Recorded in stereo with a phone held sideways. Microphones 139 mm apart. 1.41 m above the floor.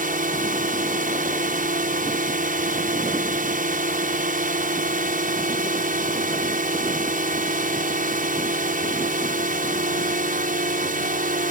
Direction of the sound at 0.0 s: 80° right.